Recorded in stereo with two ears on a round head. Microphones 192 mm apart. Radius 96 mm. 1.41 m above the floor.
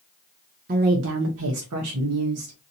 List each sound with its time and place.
0.7 s a woman speaking: 40° right (ahead or behind), 0.6 m; by 2.6 s 75° right (ahead or behind), 1.2 m